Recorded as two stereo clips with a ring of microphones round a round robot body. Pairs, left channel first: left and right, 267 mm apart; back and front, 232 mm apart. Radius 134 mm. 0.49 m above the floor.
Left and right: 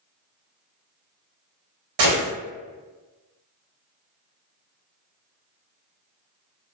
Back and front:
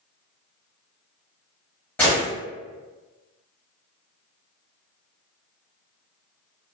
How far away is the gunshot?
About 0.8 m.